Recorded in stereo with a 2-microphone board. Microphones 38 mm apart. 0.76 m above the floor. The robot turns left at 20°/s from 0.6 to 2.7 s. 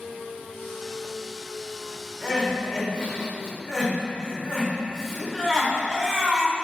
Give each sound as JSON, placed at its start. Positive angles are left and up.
{"t": 2.2, "sound": "crying", "side_deg": 20, "distance_m": 1.5}